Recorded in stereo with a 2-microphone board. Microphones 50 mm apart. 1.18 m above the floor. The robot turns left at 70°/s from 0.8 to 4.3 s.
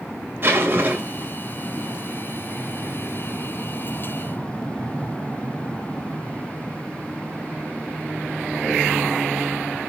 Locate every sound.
0.4 s a zipper: 135° right, 2.5 m; by 1.3 s 170° right, 2.5 m